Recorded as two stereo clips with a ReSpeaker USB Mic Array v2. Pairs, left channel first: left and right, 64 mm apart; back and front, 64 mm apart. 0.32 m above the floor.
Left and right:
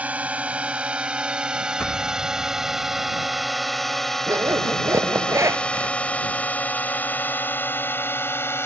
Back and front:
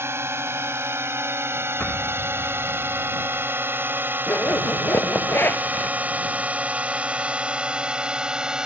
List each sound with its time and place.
0.0 s a drone: 30° right; by 8.7 s 75° left
1.8 s an explosion: 135° left
4.3 s a zipper: 125° right